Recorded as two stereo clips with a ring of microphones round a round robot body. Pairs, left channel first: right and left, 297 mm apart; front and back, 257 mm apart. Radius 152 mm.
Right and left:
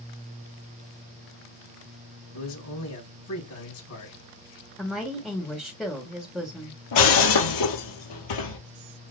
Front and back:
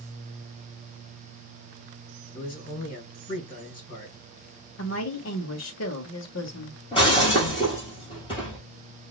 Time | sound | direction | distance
2.3 | a man speaking | 60° right | 3.5 m
4.8 | a woman speaking | 5° right | 1.3 m
6.9 | breaking glass | 75° right | 2 m